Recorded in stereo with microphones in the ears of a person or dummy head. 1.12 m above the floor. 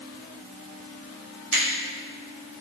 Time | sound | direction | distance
1.5 | a finger snap | 85° right | 2.0 m